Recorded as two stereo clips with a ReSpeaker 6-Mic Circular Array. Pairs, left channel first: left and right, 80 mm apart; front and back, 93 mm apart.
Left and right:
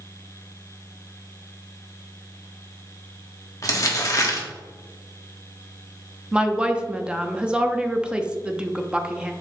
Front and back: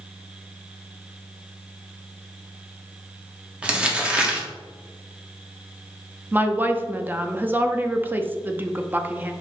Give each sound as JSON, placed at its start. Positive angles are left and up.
{"t": 3.6, "sound": "crumpling", "azimuth_deg": 110, "distance_m": 1.5}
{"t": 6.3, "sound": "a woman speaking", "azimuth_deg": -150, "distance_m": 0.7}